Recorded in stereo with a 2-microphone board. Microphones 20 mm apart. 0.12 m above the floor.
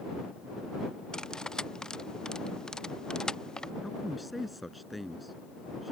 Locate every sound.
1.1 s cutlery clinking: 40° left (ahead or behind)
3.8 s a man speaking: centre (ahead or behind)